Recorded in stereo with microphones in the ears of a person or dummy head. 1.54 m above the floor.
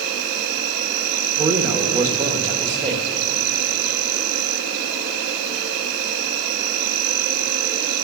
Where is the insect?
60° right (ahead or behind), 2 m.